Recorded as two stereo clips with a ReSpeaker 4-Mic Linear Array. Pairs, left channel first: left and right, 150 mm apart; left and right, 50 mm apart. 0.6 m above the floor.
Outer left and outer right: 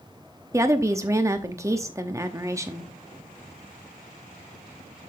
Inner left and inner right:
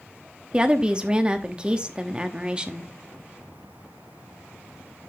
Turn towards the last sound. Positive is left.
turn(degrees=-20)  # may be behind; listen again after turning